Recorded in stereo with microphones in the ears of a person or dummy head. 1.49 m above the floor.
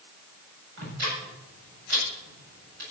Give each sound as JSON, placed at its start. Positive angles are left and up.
{"t": 0.8, "sound": "ticking", "side_deg": -60, "distance_m": 8.5}